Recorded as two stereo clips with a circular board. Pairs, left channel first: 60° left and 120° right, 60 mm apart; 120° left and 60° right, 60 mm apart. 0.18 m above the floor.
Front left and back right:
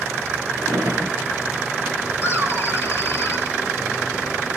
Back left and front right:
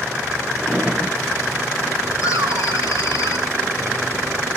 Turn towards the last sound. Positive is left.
turn(degrees=115)